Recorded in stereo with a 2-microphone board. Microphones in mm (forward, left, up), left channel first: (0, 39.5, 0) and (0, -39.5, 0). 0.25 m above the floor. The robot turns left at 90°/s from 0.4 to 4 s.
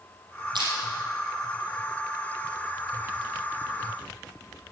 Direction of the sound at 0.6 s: 75° right (ahead or behind).